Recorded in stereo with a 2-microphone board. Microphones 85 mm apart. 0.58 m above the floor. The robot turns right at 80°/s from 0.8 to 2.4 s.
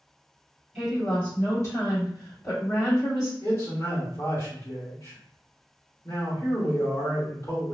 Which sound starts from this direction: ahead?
A woman speaking, at 0.8 s.